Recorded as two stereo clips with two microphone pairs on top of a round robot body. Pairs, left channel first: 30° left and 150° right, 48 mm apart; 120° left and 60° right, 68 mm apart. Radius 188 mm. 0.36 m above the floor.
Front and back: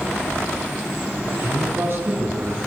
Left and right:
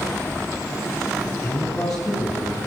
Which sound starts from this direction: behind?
A man speaking, at 1.2 s.